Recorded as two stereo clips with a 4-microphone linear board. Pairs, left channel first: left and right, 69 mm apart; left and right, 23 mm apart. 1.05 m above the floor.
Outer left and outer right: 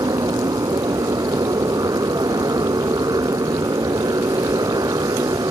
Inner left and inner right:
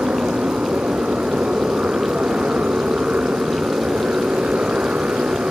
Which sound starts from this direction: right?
A motorcycle, at 0.0 s.